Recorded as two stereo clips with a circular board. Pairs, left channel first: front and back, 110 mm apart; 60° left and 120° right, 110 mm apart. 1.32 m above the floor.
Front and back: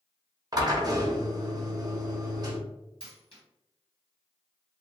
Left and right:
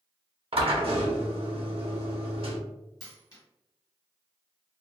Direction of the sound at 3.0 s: 10° left.